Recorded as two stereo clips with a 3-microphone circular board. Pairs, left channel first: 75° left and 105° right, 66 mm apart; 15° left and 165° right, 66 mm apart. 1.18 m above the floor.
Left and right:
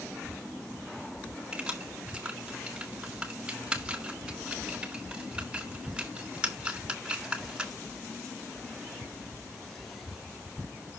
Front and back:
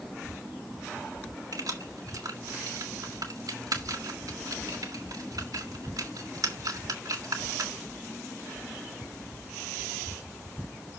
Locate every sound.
1.5 s keys jangling: 175° right, 2.0 m